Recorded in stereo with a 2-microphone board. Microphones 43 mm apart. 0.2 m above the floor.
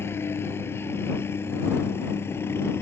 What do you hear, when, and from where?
0.0 s a helicopter: 65° left (ahead or behind); by 2.8 s 70° left (ahead or behind)